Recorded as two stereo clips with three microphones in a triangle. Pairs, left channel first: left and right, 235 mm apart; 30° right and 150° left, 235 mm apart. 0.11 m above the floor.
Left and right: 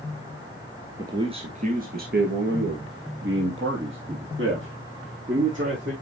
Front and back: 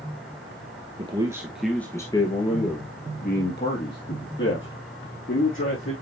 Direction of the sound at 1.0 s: 155° right.